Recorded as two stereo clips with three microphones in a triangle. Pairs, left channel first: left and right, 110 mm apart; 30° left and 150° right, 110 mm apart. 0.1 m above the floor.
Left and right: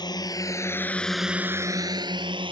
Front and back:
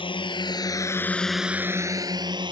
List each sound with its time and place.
0.0 s a drone: 50° left; by 2.5 s 115° right